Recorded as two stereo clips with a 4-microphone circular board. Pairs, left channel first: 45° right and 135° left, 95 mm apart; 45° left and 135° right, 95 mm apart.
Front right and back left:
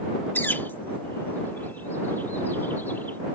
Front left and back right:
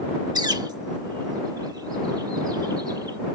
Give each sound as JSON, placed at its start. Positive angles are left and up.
{"t": 0.3, "sound": "a bird", "azimuth_deg": -105}